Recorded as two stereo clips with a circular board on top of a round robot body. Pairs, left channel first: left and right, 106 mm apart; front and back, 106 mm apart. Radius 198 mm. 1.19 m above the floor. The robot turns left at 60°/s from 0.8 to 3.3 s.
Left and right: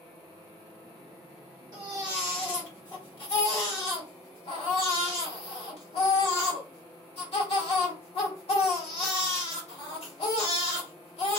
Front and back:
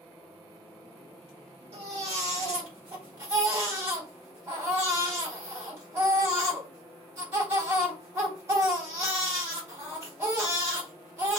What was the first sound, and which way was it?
A baby crying, 150° right.